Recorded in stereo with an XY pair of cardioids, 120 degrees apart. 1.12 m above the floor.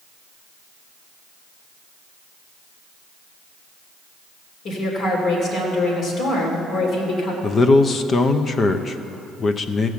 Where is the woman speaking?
60° left, 3 m.